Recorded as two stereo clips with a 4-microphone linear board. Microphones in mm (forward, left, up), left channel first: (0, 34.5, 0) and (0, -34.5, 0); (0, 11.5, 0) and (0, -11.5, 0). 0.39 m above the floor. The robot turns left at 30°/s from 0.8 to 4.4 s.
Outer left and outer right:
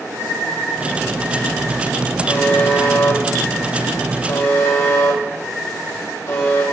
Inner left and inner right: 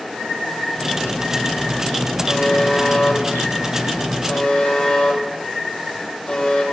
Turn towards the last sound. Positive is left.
turn(degrees=45)  # may be behind; listen again after turning